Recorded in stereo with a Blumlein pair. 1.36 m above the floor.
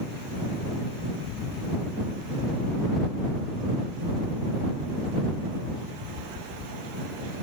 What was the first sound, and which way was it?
Footsteps, 35° left.